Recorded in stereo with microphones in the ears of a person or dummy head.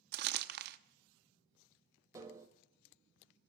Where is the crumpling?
55° right (ahead or behind), 0.8 m.